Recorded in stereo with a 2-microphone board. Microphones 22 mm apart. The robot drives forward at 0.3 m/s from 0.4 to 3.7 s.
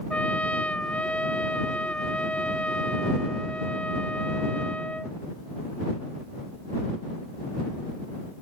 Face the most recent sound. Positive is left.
turn(degrees=75)  # may be behind; listen again after turning